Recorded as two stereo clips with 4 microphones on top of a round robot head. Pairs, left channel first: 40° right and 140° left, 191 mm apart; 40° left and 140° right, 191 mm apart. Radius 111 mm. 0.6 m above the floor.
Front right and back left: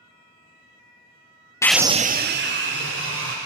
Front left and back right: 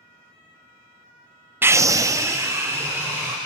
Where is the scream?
80° right, 0.6 m; by 3.4 s 145° left, 2.5 m.